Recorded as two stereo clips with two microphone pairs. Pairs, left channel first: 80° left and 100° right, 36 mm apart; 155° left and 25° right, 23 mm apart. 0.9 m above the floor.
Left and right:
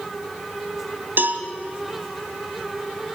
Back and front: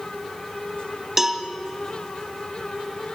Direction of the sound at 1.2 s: 100° right.